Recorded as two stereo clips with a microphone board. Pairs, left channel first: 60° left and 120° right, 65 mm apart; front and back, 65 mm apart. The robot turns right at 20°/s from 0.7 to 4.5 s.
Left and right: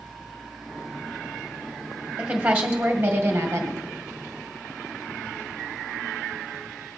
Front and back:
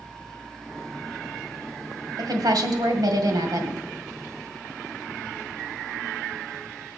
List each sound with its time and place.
2.2 s a woman speaking: 165° left, 2.0 m; by 3.8 s 165° right, 2.0 m